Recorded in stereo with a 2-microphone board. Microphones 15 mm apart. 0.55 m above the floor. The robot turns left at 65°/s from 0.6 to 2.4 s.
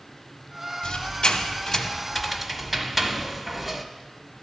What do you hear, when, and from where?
0.8 s a squeak: 75° left (ahead or behind), 0.8 m; by 3.9 s 5° right (ahead or behind), 0.8 m